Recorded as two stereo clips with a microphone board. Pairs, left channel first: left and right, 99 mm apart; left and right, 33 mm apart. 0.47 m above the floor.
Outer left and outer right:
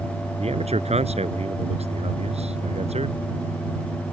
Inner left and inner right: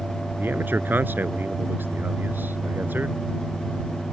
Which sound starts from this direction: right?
A man speaking, at 0.4 s.